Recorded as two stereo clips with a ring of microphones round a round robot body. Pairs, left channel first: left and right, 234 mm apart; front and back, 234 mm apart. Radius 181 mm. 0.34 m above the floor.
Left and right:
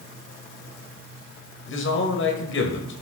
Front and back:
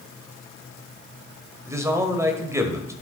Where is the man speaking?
105° left, 2 m.